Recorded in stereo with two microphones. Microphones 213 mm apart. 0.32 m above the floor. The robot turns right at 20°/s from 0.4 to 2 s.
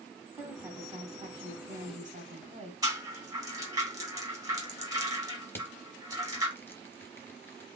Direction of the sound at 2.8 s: 15° right (ahead or behind).